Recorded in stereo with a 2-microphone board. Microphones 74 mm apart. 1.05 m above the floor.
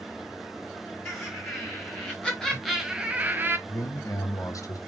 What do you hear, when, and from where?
1.1 s laughter: 25° left (ahead or behind), 1.6 m; by 3.6 s 30° right (ahead or behind), 0.7 m
3.7 s a man speaking: 50° left (ahead or behind), 0.8 m